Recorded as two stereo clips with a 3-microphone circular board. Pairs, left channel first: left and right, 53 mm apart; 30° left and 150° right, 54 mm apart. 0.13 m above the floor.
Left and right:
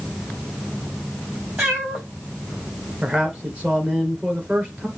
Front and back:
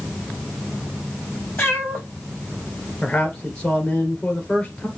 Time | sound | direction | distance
1.6 | a cat meowing | 30° right | 5 m
3.0 | a man speaking | 30° right | 2.5 m